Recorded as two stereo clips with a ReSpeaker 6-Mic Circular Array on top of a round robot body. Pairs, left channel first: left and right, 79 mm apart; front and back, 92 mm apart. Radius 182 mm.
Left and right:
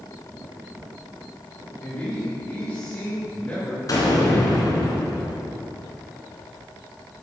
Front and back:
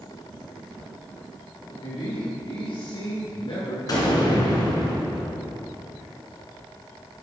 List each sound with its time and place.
1.8 s a man speaking: 20° left, 3.5 m
3.9 s an explosion: 45° left, 2 m